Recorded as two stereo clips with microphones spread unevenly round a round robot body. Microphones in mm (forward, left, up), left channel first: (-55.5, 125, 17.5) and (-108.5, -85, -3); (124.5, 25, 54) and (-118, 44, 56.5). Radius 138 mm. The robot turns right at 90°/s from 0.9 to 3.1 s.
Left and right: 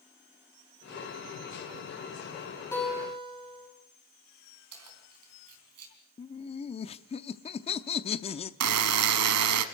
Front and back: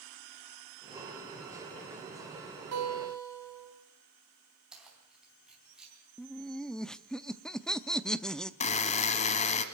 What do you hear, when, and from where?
2.7 s a guitar: 155° left, 4 m; by 3.7 s 170° right, 4 m
4.7 s keys jangling: 95° right, 3.5 m
6.2 s laughter: 75° left, 0.6 m
8.6 s a buzzer: 70° right, 0.8 m